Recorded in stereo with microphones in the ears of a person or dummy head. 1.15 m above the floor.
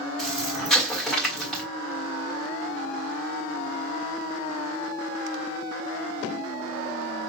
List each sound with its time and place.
0.2 s an explosion: centre (ahead or behind), 1.4 m